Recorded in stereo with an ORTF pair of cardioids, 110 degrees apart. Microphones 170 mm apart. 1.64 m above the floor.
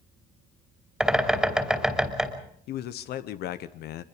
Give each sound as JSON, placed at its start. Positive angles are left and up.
{"t": 1.0, "sound": "a bird", "azimuth_deg": 0, "distance_m": 3.0}
{"t": 2.7, "sound": "a man speaking", "azimuth_deg": 70, "distance_m": 0.9}